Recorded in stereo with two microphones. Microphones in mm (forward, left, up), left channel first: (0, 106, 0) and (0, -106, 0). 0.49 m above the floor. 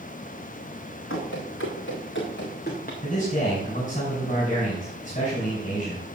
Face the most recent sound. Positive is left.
turn(degrees=40)  # may be behind; listen again after turning